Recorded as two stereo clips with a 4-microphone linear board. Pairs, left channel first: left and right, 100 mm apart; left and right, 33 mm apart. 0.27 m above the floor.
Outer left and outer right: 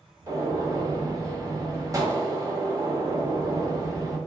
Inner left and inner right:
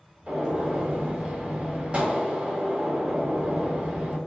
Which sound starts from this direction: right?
A gunshot, at 0.3 s.